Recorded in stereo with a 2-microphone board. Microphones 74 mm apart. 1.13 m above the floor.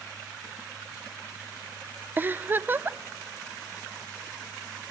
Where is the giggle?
25° right (ahead or behind), 0.5 m.